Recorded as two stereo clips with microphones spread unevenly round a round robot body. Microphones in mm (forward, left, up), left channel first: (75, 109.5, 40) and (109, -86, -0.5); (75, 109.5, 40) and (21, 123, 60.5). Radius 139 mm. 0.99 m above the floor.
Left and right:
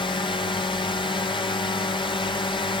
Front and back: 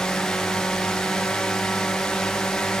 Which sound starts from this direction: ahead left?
A drone, at 0.0 s.